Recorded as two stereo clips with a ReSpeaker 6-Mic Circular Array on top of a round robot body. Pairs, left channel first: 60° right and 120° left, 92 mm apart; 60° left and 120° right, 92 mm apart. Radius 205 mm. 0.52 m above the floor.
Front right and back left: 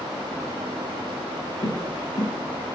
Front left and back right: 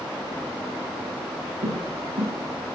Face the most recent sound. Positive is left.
turn(degrees=-110)